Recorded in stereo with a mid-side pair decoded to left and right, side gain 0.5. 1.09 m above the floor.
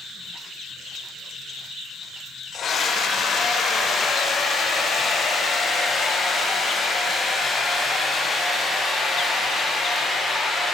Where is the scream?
50° left, 4 m; by 10.7 s 20° left, 8.5 m.